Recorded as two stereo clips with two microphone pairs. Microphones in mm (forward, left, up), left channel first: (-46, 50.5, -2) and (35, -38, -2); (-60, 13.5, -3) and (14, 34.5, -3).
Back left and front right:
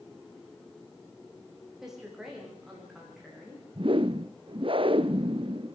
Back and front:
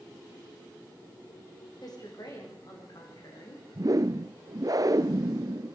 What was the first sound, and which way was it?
A woman speaking, 135° right.